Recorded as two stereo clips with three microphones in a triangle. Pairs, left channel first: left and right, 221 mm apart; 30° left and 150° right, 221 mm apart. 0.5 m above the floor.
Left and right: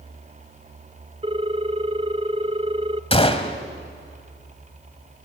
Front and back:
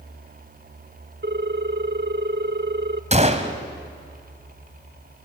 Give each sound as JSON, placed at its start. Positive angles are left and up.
{"t": 1.2, "sound": "a ringtone", "azimuth_deg": -145, "distance_m": 0.7}
{"t": 3.1, "sound": "a gunshot", "azimuth_deg": 155, "distance_m": 1.5}